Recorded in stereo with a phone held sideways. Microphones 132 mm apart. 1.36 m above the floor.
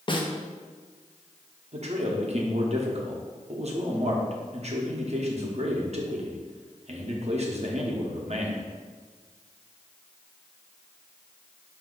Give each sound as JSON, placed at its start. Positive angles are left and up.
{"t": 0.1, "sound": "a snare drum", "side_deg": 40, "distance_m": 0.6}
{"t": 1.7, "sound": "a man speaking", "side_deg": -55, "distance_m": 0.8}